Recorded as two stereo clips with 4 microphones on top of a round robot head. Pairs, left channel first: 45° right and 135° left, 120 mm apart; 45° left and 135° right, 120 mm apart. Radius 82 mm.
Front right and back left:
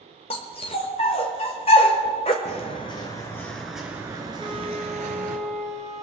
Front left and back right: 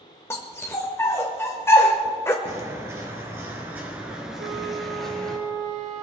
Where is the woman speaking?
I don't hear a woman speaking.